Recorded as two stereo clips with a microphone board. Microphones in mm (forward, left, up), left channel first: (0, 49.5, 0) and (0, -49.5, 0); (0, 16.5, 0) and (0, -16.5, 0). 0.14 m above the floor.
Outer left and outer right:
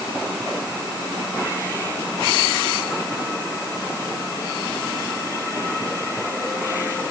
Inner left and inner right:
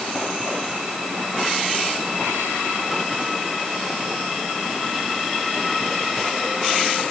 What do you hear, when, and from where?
Only background noise.